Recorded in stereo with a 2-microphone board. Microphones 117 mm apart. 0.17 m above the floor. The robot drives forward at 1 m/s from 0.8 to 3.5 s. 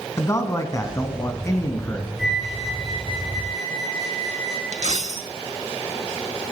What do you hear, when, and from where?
0.2 s a man speaking: 25° left (ahead or behind), 1.4 m; by 2.1 s 20° left (ahead or behind), 1.6 m
2.2 s a flute: 5° right (ahead or behind), 1.7 m; by 4.6 s centre (ahead or behind), 3 m
4.7 s a dropped coin: 70° right (ahead or behind), 0.6 m